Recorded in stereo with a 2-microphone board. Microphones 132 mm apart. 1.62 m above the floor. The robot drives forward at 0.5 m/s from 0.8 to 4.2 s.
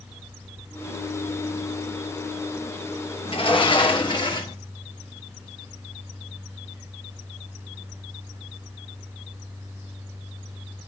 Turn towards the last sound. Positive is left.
turn(degrees=40)  # may be behind; listen again after turning